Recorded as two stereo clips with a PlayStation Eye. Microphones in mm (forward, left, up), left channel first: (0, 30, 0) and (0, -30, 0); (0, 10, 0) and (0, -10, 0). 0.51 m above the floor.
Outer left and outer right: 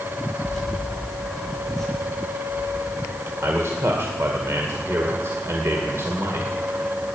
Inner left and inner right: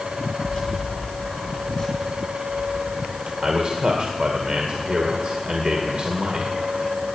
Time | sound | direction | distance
0.4 | keys jangling | centre (ahead or behind) | 9 m
3.4 | a man speaking | 50° right (ahead or behind) | 2.0 m